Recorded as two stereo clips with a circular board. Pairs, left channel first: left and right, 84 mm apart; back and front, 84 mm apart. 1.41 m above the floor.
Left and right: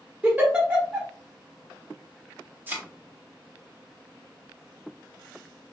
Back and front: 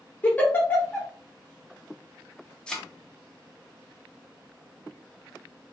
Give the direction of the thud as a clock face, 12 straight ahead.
4 o'clock.